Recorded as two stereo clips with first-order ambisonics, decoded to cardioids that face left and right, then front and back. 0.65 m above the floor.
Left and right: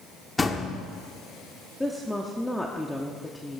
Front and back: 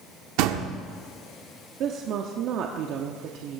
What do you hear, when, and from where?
0.4 s a door slam: 170° left, 1.0 m
1.8 s a woman speaking: 175° left, 1.0 m